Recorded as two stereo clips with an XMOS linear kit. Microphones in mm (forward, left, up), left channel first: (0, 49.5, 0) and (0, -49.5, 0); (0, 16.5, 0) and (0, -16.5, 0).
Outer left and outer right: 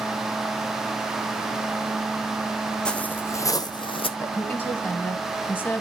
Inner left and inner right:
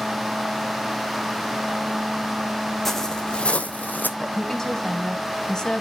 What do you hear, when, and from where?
2.9 s footsteps: 10° left (ahead or behind), 0.7 m; by 4.1 s 65° left (ahead or behind), 0.6 m
4.2 s a woman speaking: 20° left (ahead or behind), 1.0 m